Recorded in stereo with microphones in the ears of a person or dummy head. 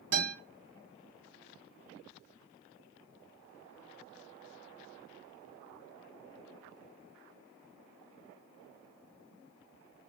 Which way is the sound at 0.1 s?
60° right (ahead or behind).